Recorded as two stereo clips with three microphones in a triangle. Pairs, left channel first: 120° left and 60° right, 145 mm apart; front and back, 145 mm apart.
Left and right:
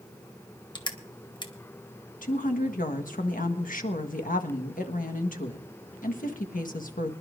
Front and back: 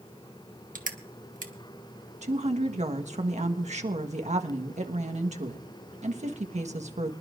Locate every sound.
0.8 s crushing: 175° left, 1.3 m
2.2 s a woman speaking: 140° left, 1.4 m